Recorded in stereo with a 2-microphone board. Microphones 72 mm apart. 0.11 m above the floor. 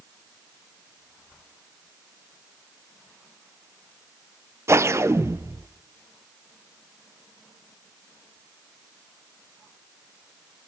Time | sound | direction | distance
4.7 | a whoosh | 40° right (ahead or behind) | 0.6 m